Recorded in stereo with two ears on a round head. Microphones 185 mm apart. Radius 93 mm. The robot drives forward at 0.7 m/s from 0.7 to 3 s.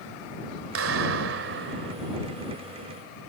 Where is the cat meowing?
I don't hear a cat meowing.